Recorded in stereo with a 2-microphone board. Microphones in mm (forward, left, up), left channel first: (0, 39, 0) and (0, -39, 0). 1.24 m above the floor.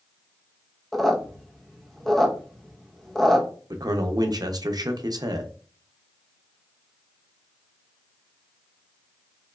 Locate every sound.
0.9 s a squeak: 5° left (ahead or behind), 0.7 m
3.7 s a man speaking: 60° right (ahead or behind), 0.5 m